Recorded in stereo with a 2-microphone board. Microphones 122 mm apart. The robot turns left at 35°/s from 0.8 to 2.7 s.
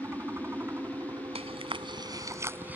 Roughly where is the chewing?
Right.